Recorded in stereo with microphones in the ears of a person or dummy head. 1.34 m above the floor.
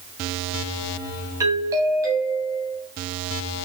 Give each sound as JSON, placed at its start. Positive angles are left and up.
{"t": 1.4, "sound": "a doorbell", "side_deg": -20, "distance_m": 1.5}